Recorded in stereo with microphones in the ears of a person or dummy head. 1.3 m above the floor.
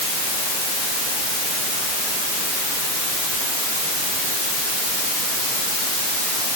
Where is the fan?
I don't hear a fan.